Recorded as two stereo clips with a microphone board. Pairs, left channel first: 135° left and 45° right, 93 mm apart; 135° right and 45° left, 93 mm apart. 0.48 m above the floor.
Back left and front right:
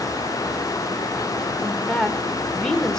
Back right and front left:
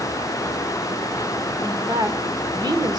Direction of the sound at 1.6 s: 55° left.